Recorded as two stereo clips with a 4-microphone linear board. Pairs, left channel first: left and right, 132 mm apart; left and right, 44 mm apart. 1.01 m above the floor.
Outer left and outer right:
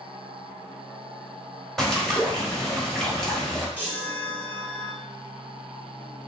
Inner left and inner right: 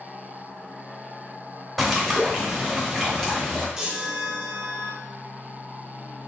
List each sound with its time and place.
1.8 s a bird: 5° left (ahead or behind), 0.9 m
3.8 s a chime: 15° right (ahead or behind), 1.0 m